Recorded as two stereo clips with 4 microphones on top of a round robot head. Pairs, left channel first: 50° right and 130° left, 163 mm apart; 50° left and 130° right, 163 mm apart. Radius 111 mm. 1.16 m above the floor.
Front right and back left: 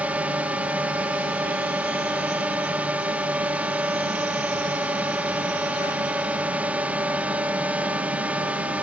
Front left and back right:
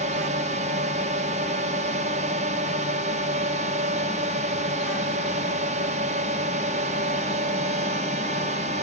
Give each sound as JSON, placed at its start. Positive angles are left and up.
{"t": 0.0, "sound": "a drone", "azimuth_deg": -150}